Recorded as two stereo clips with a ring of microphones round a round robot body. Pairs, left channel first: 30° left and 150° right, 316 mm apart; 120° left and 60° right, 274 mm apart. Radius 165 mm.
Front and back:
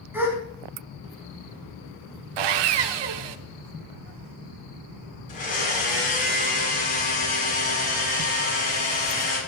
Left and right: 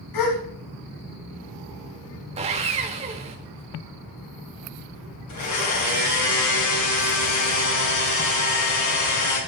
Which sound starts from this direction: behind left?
A gasp, at 0.1 s.